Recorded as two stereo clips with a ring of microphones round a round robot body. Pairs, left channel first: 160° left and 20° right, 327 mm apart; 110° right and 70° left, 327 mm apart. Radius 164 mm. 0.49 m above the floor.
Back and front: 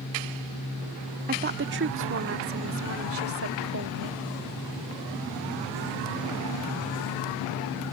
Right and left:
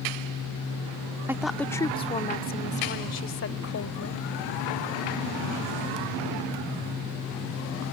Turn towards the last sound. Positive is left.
turn(degrees=-70)